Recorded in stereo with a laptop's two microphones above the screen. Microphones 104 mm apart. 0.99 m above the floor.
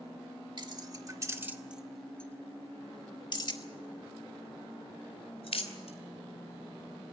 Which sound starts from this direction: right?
Keys jangling, at 0.6 s.